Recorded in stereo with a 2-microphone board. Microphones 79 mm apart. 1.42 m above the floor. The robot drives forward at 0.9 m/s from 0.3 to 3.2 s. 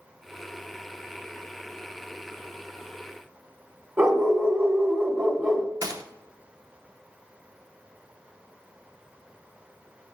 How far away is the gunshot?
About 0.6 m.